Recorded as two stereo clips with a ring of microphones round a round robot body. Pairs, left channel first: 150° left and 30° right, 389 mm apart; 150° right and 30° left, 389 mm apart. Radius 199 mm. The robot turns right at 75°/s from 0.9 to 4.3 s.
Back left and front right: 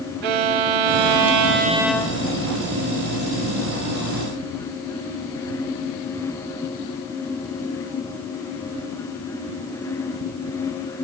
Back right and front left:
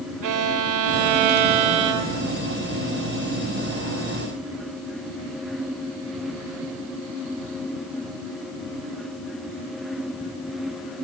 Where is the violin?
15° right, 1.2 m; by 2.3 s 90° left, 1.2 m.